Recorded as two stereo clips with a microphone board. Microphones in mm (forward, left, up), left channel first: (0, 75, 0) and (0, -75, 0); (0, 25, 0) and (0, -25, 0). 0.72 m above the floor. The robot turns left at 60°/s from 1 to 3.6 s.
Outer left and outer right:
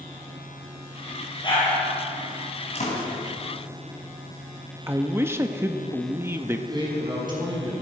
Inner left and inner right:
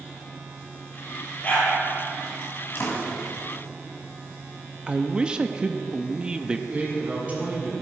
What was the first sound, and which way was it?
A dog barking, 30° left (ahead or behind).